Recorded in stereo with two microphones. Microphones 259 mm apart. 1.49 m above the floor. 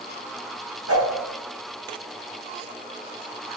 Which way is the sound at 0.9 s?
65° right (ahead or behind).